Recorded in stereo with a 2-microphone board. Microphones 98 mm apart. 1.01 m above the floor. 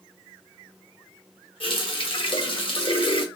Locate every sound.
1.6 s a running tap: 65° left (ahead or behind), 0.6 m